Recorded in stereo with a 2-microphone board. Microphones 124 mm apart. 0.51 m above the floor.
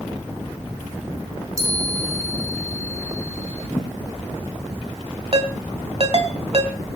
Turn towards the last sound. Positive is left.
turn(degrees=-50)  # may be behind; listen again after turning